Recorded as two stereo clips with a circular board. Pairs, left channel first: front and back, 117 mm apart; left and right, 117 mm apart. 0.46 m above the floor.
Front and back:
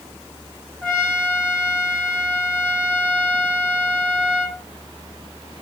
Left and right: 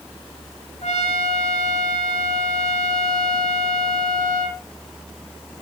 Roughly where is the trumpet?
Left.